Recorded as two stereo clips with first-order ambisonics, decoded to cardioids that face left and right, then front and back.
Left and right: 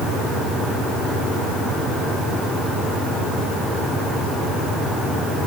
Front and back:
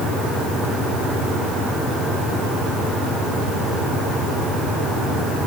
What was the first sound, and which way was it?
Only background noise.